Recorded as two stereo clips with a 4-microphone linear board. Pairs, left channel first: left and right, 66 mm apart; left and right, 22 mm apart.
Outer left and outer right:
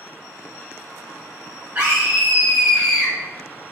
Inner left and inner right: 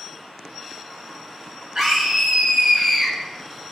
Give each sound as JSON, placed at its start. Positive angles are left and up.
{"t": 1.8, "sound": "a scream", "side_deg": -35, "distance_m": 1.6}